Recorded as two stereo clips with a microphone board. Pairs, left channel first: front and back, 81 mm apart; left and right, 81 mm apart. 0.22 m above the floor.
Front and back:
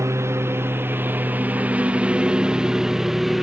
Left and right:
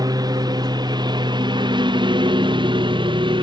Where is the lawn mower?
125° right; by 3.4 s 90° right.